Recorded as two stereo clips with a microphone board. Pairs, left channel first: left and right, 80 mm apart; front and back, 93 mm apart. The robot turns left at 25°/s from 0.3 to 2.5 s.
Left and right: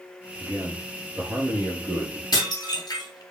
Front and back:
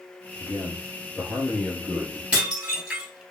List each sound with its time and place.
0.4 s a man speaking: 45° right, 2.0 m; by 2.2 s 90° right, 2.0 m
2.3 s dishes clattering: 105° left, 1.7 m; by 3.2 s 100° left, 1.7 m